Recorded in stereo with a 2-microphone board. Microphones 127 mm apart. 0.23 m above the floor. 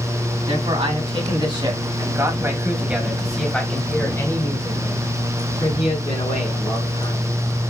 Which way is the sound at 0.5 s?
50° right (ahead or behind).